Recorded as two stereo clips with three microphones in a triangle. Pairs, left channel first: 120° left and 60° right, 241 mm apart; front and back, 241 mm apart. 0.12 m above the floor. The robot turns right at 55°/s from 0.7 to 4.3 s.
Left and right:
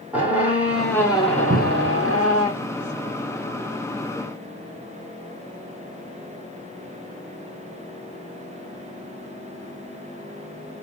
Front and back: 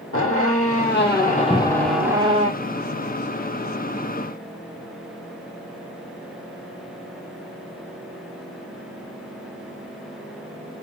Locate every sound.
0.1 s a squeak: 25° left, 1.4 m; by 2.5 s 125° left, 1.4 m
1.5 s a cupboard door: 80° right, 0.5 m; by 2.0 s 55° right, 0.5 m